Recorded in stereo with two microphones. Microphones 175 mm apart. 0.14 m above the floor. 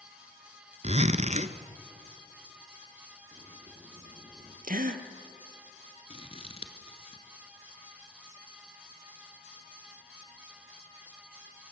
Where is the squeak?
I don't hear a squeak.